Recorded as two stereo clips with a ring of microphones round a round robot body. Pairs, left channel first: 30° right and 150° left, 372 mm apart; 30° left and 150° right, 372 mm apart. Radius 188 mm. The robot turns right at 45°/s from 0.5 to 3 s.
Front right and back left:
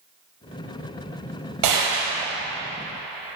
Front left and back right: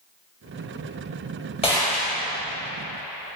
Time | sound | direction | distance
1.6 | a gunshot | 105° left | 4.5 m